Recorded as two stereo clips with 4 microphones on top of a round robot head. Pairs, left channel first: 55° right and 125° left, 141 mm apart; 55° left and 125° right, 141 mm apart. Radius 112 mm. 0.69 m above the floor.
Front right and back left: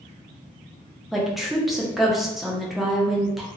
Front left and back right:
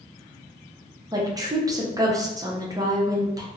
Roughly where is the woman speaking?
Behind right.